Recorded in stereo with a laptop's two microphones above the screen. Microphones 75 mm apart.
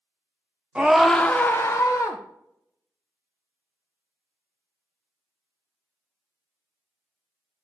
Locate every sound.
0.8 s a scream: 15° right (ahead or behind), 0.6 m; by 2.2 s 50° left (ahead or behind), 0.9 m